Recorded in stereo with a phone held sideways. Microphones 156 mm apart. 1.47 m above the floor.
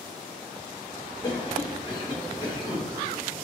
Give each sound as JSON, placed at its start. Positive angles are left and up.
{"t": 1.2, "sound": "a cough", "side_deg": 30, "distance_m": 5.0}